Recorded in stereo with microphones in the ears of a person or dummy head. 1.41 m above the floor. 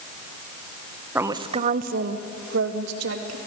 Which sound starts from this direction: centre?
A woman speaking, at 1.1 s.